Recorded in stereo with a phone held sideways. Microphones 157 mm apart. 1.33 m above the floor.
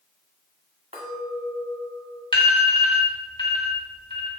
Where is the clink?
45° right (ahead or behind), 1.6 m.